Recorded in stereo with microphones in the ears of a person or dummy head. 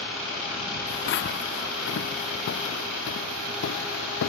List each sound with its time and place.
0.9 s footsteps: 65° left (ahead or behind); by 4.3 s 80° left